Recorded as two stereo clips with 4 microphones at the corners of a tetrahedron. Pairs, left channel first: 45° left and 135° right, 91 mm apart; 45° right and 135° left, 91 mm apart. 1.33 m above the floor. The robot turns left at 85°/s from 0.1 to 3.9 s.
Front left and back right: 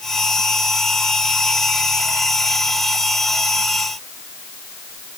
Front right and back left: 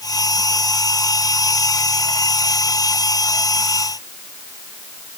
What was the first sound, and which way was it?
Only background noise.